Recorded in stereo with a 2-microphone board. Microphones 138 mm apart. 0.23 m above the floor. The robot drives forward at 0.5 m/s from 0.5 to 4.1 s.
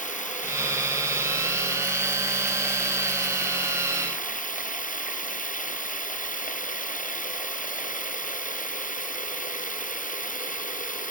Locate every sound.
0.0 s running water: 65° left (ahead or behind); by 11.1 s 70° left (ahead or behind)